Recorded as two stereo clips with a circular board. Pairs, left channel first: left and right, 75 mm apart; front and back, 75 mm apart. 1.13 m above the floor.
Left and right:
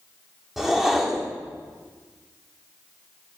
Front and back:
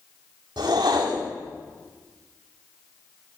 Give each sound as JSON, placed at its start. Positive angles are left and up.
{"t": 0.6, "sound": "a whoosh", "azimuth_deg": -175, "distance_m": 1.8}